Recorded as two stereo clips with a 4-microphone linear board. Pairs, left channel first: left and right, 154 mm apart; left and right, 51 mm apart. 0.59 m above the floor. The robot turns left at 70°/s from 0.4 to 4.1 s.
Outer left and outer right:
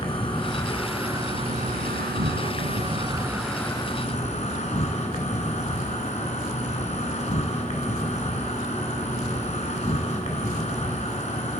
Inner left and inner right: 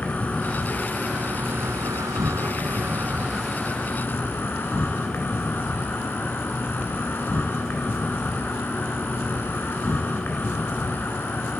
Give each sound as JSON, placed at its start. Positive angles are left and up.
{"t": 0.0, "sound": "an insect", "azimuth_deg": 35, "distance_m": 2.0}